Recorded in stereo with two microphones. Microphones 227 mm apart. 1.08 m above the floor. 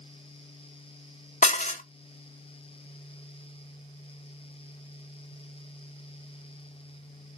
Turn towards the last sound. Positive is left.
turn(degrees=30)  # may be behind; listen again after turning